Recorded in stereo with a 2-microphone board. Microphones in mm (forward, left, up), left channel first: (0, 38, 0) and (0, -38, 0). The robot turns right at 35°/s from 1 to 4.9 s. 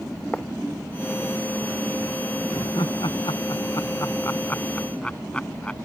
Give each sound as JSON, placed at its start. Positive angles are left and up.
{"t": 0.3, "sound": "writing", "side_deg": 15}
{"t": 2.5, "sound": "laughter", "side_deg": 80}